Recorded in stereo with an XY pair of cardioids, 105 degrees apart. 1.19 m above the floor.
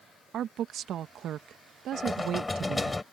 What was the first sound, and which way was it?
A woman speaking, 65° right.